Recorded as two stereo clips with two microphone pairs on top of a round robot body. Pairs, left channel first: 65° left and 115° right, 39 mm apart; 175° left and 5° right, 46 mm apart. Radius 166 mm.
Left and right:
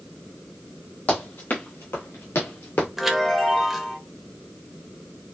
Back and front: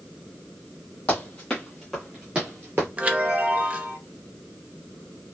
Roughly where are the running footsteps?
Behind left.